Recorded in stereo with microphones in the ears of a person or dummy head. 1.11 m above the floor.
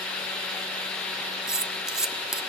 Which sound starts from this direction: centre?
Cutlery clinking, at 1.5 s.